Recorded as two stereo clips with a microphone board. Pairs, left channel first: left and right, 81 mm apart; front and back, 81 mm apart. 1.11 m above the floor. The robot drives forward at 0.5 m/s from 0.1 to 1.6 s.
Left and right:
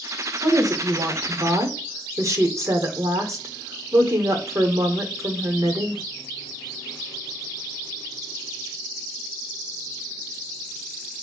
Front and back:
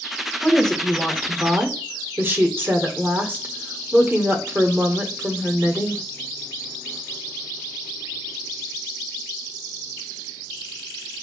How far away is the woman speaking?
About 0.8 m.